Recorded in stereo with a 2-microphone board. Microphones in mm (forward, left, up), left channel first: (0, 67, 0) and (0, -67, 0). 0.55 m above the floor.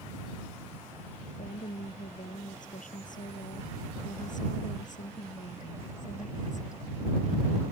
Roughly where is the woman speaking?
Left.